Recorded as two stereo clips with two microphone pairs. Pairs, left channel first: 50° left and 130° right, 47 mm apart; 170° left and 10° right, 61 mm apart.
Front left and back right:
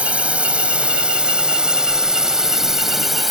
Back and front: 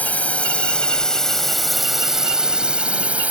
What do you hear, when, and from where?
0.0 s a drone: 160° right; by 3.3 s 45° right